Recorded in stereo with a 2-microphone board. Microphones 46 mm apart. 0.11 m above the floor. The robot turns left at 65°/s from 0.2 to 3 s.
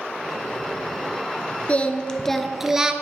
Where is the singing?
50° left, 0.8 m; by 2.9 s 30° right, 0.8 m.